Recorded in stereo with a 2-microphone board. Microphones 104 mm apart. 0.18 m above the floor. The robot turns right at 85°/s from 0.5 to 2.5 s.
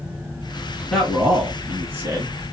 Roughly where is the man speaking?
Centre.